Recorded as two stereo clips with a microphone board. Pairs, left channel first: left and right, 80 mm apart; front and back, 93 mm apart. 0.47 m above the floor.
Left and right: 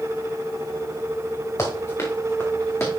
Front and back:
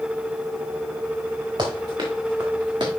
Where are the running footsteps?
140° left, 3.5 m; by 2.9 s 145° left, 2.5 m.